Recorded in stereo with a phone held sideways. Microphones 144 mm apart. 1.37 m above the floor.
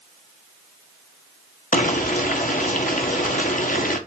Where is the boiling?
70° left (ahead or behind), 1.3 m.